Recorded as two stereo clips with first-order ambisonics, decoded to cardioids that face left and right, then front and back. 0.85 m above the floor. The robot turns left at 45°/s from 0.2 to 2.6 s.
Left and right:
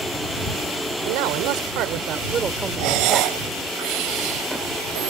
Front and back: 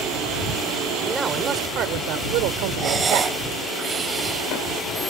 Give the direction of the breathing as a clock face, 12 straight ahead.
4 o'clock.